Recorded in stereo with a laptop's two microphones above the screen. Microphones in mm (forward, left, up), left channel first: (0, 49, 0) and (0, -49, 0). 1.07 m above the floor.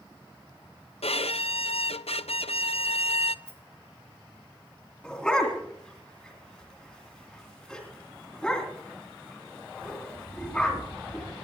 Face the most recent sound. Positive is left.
turn(degrees=5)  # may be behind; listen again after turning